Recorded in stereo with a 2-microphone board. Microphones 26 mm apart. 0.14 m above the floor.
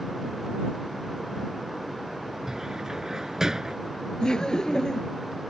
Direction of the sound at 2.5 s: 25° right (ahead or behind).